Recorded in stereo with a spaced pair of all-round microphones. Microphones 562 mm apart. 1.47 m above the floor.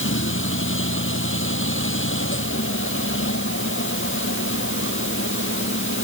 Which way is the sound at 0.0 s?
20° left (ahead or behind).